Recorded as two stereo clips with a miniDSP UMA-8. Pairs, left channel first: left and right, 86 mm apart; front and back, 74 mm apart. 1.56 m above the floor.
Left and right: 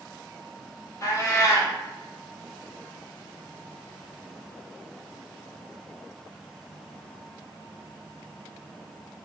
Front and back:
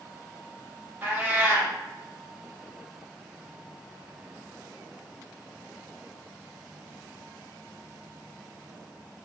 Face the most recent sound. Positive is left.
turn(degrees=125)